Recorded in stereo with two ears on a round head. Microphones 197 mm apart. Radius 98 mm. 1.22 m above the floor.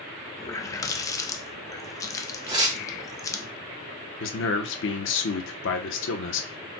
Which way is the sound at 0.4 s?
15° left (ahead or behind).